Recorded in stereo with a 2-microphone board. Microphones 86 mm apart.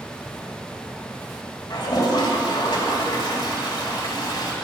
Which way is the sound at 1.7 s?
50° left (ahead or behind).